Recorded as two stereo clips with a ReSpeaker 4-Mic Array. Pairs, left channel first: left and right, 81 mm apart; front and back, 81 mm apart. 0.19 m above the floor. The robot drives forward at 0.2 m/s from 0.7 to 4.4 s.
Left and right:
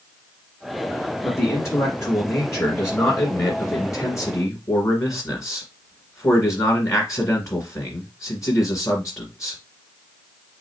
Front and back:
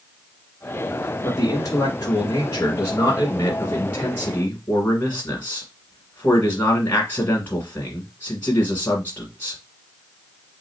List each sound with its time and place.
1.2 s a man speaking: 40° left, 1.9 m; by 9.6 s 60° left, 1.5 m